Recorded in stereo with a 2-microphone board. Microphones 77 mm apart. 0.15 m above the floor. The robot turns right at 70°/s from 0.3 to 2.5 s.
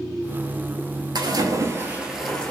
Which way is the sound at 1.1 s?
75° right.